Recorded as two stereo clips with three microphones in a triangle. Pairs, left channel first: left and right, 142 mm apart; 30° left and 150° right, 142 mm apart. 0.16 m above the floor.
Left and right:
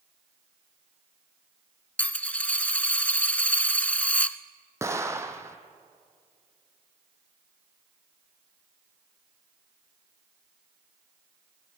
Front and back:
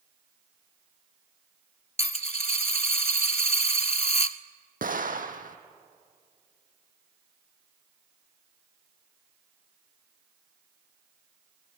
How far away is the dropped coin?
About 0.6 m.